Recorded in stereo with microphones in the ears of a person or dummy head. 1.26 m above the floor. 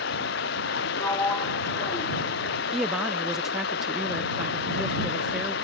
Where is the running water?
65° left (ahead or behind).